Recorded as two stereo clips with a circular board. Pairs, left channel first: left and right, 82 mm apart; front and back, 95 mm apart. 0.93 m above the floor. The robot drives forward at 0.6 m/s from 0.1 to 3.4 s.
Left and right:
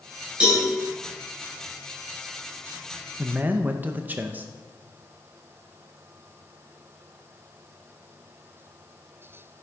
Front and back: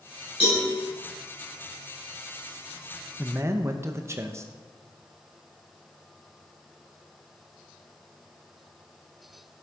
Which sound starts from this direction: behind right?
A man speaking, at 3.2 s.